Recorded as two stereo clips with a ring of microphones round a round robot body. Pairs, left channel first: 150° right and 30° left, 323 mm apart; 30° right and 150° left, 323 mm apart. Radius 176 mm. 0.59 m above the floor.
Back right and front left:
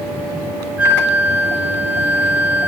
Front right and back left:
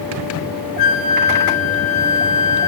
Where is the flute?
55° right, 3 m.